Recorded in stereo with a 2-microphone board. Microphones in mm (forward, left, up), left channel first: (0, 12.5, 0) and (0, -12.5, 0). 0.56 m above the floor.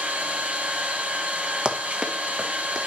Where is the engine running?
65° right (ahead or behind), 3 m.